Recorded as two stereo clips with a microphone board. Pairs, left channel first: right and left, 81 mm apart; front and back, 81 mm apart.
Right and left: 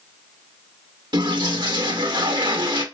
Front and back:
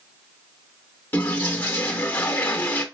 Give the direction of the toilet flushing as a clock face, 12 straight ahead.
10 o'clock.